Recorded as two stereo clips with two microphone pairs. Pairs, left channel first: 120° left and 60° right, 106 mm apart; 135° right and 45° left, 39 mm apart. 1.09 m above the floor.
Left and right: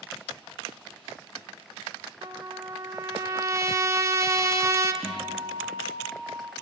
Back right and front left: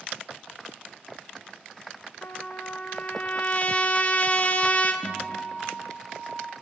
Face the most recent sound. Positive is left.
turn(degrees=-125)